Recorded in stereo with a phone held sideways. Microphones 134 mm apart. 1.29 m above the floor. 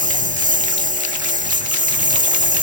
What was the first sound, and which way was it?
A lawn mower, 75° right (ahead or behind).